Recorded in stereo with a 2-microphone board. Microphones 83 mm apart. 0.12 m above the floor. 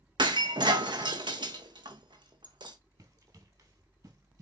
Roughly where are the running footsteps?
Right.